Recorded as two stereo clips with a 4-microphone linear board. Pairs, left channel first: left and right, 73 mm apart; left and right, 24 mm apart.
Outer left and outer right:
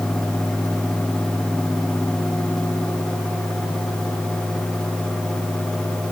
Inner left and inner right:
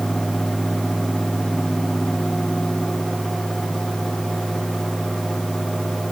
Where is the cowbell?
I don't hear a cowbell.